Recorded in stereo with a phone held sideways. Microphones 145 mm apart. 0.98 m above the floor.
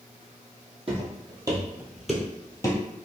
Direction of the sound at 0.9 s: 45° right (ahead or behind).